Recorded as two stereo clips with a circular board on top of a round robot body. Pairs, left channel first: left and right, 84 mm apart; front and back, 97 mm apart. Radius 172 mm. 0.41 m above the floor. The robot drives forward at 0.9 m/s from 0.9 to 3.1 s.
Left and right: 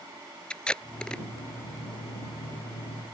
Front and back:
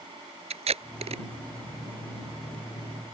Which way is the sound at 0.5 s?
170° left.